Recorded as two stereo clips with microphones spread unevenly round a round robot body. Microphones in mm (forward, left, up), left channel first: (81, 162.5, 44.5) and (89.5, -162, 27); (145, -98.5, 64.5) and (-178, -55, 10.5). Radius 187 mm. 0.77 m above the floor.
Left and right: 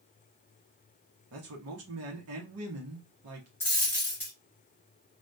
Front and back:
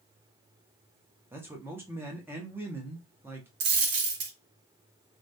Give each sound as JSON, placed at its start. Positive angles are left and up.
{"t": 1.3, "sound": "a man speaking", "azimuth_deg": -115, "distance_m": 0.7}
{"t": 3.6, "sound": "a dropped coin", "azimuth_deg": 165, "distance_m": 0.6}